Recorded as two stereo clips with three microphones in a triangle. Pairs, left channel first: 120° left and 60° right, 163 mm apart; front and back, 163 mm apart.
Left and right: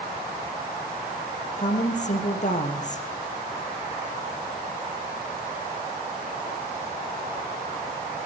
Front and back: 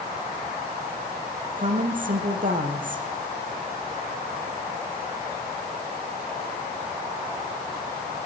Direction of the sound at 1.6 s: 155° left.